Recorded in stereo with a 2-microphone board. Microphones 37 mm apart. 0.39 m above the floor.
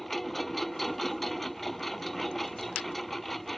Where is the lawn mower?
5° left (ahead or behind).